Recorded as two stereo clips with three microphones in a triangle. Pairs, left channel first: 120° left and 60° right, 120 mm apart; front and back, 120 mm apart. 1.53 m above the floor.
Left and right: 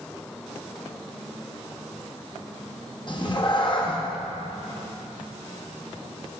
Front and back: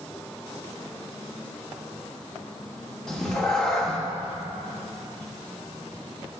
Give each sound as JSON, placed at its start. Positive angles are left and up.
{"t": 3.1, "sound": "a cat meowing", "azimuth_deg": 85, "distance_m": 1.2}